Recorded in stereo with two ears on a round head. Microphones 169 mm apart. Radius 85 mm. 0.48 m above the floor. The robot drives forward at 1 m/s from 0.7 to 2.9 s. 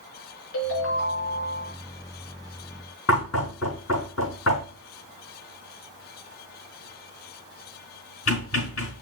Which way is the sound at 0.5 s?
75° left (ahead or behind).